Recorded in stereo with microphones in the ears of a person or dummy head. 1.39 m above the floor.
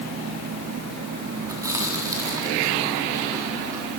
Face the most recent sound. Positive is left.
turn(degrees=-15)  # may be behind; listen again after turning